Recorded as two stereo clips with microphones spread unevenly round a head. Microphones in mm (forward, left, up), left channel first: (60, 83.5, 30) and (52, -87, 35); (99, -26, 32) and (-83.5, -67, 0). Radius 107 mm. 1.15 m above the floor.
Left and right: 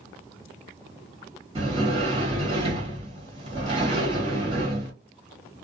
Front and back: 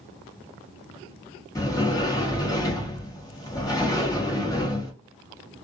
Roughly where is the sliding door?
Ahead right.